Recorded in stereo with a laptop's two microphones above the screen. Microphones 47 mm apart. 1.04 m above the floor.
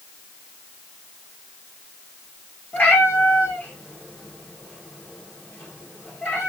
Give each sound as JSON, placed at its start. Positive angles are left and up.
{"t": 2.7, "sound": "a cat meowing", "side_deg": 35, "distance_m": 2.0}